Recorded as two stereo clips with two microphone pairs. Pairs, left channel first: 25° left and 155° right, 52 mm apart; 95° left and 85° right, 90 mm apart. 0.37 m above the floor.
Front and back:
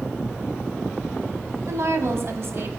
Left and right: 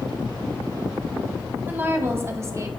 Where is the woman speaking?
155° right, 2.0 m; by 2.7 s 130° right, 1.5 m.